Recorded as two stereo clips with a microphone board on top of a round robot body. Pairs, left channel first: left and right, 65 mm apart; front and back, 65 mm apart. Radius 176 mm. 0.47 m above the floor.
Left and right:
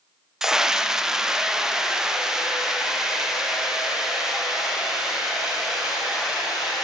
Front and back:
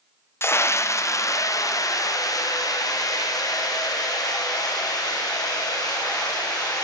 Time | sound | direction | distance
0.4 | a scream | 10° right | 1.2 m